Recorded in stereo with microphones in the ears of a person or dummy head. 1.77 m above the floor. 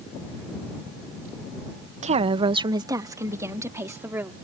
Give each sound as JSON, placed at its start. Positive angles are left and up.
{"t": 2.0, "sound": "a woman speaking", "side_deg": -40}